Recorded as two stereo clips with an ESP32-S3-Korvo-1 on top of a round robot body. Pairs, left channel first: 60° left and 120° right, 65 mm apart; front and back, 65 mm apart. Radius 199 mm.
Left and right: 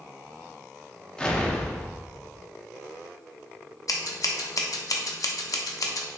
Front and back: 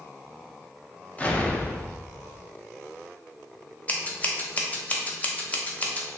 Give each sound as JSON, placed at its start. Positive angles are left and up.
{"t": 1.2, "sound": "an explosion", "azimuth_deg": 10, "distance_m": 0.8}
{"t": 3.9, "sound": "scissors", "azimuth_deg": 60, "distance_m": 0.7}